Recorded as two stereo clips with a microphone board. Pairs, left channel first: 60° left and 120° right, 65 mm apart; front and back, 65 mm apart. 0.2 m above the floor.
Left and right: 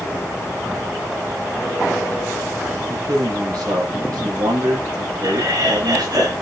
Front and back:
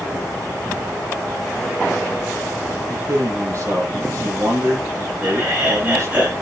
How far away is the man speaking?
About 8.5 m.